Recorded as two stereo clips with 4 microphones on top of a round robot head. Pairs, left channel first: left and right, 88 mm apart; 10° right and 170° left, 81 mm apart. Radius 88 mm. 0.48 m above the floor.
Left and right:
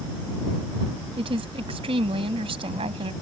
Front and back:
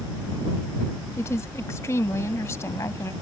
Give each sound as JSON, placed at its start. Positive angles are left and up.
{"t": 1.2, "sound": "a woman speaking", "azimuth_deg": -70}